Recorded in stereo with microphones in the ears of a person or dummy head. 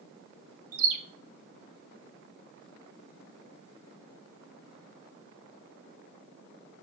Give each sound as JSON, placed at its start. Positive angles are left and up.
{"t": 0.7, "sound": "a bird", "side_deg": -85, "distance_m": 1.5}